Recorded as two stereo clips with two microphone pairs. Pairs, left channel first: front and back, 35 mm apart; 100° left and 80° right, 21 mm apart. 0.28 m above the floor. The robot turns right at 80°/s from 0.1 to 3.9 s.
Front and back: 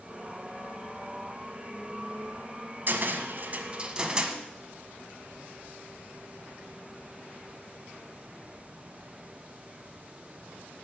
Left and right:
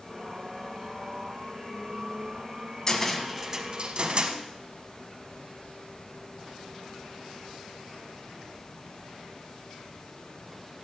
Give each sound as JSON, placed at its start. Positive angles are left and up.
{"t": 2.9, "sound": "a cupboard door", "azimuth_deg": 160, "distance_m": 1.3}